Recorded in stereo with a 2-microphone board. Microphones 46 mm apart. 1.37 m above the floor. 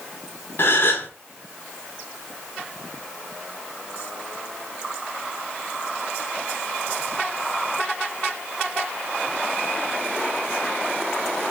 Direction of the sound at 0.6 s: 45° left (ahead or behind).